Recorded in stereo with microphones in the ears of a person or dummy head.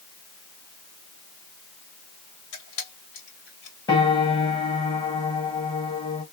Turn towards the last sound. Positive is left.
turn(degrees=30)  # may be behind; listen again after turning